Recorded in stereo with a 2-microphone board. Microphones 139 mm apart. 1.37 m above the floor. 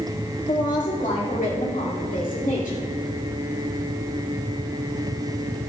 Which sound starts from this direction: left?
A woman speaking, at 0.5 s.